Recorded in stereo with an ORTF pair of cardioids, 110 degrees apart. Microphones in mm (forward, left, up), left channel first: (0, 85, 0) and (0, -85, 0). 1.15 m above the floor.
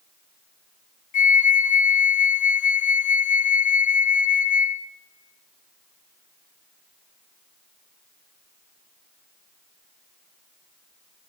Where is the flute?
50° left, 0.5 m.